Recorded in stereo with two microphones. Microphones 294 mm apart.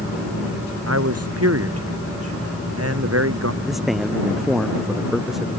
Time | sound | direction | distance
0.9 | a man speaking | 55° right (ahead or behind) | ?
3.6 | a man speaking | centre (ahead or behind) | ?